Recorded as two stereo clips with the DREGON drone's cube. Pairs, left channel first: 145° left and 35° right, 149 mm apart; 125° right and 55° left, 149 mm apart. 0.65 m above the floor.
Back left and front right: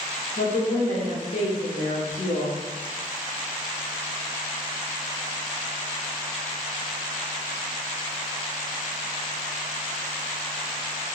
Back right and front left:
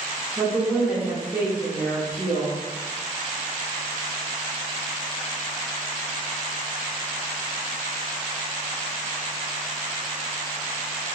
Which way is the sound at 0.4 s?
135° left.